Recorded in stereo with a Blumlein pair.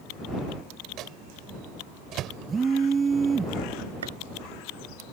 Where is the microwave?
35° right.